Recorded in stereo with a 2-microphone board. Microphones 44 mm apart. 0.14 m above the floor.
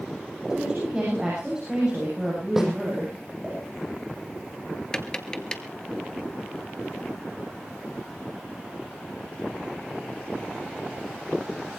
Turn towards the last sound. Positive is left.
turn(degrees=20)  # may be behind; listen again after turning